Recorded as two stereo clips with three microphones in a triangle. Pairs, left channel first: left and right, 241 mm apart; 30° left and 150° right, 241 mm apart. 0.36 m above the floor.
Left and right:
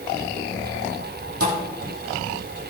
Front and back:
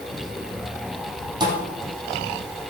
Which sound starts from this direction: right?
A thud, at 1.4 s.